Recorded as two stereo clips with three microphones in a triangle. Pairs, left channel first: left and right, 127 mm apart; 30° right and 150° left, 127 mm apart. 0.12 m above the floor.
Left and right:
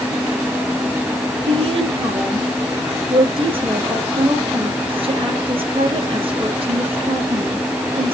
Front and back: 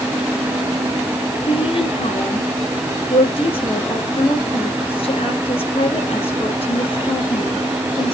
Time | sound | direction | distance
1.5 | a woman speaking | 60° right | 3.5 m